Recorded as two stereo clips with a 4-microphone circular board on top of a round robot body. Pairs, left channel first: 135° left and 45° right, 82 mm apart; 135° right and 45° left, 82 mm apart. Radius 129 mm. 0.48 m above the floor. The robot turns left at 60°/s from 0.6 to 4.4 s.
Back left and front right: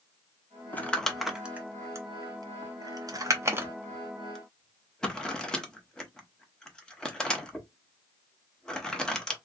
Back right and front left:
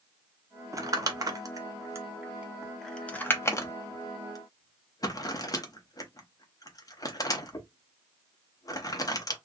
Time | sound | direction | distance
0.7 | crumpling | 75° left | 1.1 m